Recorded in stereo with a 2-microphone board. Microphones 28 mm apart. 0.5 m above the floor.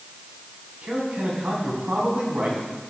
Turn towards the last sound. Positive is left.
turn(degrees=-65)  # may be behind; listen again after turning